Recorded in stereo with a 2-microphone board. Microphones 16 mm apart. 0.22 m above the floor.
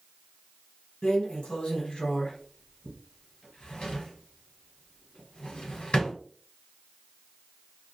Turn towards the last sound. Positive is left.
turn(degrees=70)  # may be behind; listen again after turning